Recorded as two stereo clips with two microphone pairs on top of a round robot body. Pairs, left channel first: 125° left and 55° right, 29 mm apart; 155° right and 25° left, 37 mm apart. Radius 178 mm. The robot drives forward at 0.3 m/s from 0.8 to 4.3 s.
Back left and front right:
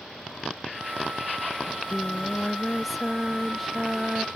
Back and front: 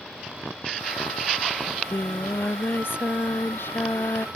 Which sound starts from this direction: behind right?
Singing, at 1.6 s.